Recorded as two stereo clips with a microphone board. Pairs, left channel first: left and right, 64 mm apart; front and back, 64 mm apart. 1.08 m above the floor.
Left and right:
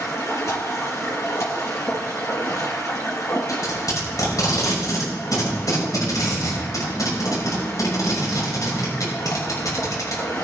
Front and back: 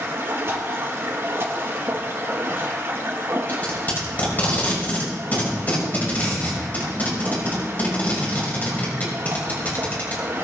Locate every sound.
0.0 s running water: 130° left, 4.5 m
3.5 s tape being pulled: 60° left, 6.5 m